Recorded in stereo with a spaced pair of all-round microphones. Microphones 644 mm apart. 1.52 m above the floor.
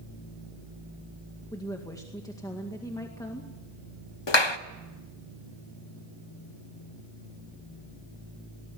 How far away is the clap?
About 1.1 m.